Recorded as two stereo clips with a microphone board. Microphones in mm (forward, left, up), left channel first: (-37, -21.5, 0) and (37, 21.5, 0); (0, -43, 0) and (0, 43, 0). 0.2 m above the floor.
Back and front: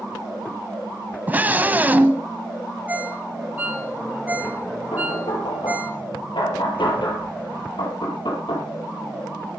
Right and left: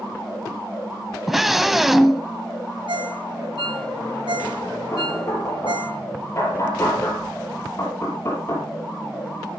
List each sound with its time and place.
1.3 s a scream: 5° left, 1.1 m
2.9 s a ringtone: 100° left, 1.7 m
4.9 s knocking: 145° right, 5 m